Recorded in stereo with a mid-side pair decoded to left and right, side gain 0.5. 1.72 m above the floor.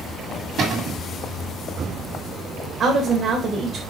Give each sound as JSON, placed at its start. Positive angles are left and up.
{"t": 0.6, "sound": "a cupboard door", "azimuth_deg": -60, "distance_m": 1.5}
{"t": 2.8, "sound": "a woman speaking", "azimuth_deg": -50, "distance_m": 1.1}